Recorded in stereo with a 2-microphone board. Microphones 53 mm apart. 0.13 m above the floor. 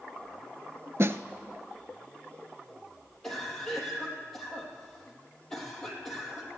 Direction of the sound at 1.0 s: 55° right (ahead or behind).